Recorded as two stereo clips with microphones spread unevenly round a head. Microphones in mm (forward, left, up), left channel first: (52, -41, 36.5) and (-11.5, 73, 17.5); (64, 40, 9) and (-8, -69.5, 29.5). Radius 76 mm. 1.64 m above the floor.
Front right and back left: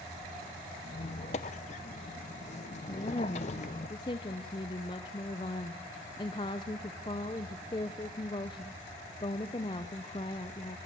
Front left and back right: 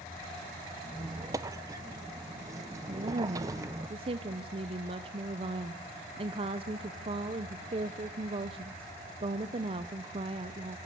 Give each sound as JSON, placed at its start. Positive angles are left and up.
{"t": 0.8, "sound": "a squeak", "azimuth_deg": -75, "distance_m": 0.7}
{"t": 2.9, "sound": "a woman speaking", "azimuth_deg": -105, "distance_m": 0.6}